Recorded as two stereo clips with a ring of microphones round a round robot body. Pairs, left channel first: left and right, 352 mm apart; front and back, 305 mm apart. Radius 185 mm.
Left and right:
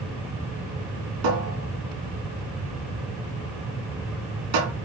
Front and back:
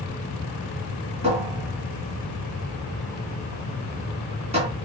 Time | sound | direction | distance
1.2 | a cupboard door | 105° right | 3 m